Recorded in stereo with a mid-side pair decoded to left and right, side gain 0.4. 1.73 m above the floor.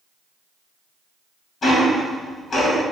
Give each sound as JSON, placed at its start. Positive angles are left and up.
{"t": 1.6, "sound": "ticking", "azimuth_deg": 60, "distance_m": 1.9}